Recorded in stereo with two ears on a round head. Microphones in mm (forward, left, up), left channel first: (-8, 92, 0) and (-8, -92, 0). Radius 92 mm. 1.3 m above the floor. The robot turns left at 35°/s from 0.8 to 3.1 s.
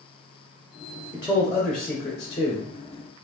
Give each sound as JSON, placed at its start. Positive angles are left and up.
{"t": 1.1, "sound": "a man speaking", "azimuth_deg": -160, "distance_m": 0.8}